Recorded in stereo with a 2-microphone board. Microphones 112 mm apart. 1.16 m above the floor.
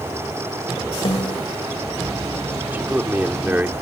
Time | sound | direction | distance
1.1 | a snare drum | 50° left (ahead or behind) | ?
2.7 | a man speaking | 20° right (ahead or behind) | ?